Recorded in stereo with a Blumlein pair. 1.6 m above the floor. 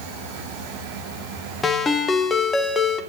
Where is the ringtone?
20° left, 1.4 m.